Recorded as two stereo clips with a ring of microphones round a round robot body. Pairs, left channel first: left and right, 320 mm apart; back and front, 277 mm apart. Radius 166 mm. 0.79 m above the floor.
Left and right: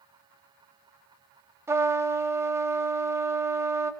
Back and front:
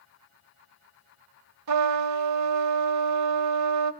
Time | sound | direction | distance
1.7 | a trumpet | 10° right | 0.8 m